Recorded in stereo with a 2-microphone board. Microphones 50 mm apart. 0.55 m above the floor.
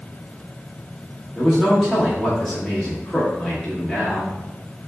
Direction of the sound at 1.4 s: 5° left (ahead or behind).